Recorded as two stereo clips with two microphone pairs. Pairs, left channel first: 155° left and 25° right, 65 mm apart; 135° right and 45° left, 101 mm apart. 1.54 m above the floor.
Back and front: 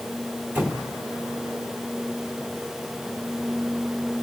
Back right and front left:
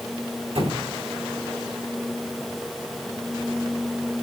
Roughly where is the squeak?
Ahead left.